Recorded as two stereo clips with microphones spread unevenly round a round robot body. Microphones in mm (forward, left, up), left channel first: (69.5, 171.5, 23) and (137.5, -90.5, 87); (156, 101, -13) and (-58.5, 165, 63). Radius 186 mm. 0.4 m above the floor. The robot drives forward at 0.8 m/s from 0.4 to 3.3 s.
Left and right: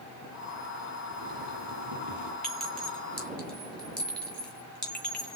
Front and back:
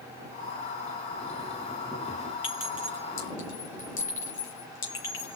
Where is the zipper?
105° right, 3 m; by 2.3 s 120° right, 3.5 m.